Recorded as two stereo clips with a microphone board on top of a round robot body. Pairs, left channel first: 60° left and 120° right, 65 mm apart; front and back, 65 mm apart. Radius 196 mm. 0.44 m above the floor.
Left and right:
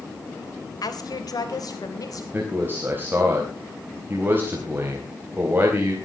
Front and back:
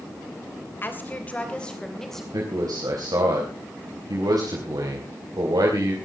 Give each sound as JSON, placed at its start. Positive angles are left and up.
{"t": 0.8, "sound": "a woman speaking", "azimuth_deg": 55, "distance_m": 3.5}
{"t": 2.3, "sound": "a man speaking", "azimuth_deg": 180, "distance_m": 4.0}